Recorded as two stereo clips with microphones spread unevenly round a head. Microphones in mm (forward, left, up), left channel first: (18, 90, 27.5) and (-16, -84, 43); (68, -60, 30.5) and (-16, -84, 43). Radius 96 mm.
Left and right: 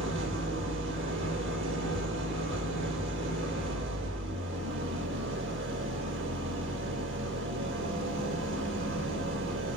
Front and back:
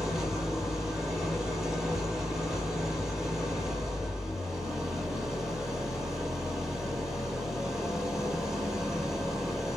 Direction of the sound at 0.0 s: 80° right.